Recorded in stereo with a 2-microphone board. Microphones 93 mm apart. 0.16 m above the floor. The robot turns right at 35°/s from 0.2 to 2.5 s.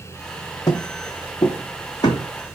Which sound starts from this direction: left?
Footsteps, at 0.7 s.